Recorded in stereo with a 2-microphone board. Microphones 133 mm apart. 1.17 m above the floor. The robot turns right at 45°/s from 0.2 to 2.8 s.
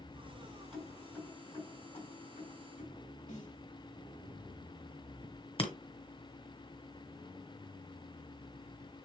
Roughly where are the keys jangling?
Centre.